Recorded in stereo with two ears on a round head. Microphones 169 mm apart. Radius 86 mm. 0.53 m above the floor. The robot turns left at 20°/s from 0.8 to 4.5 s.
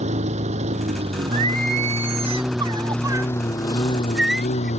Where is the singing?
115° right; by 4.7 s straight behind.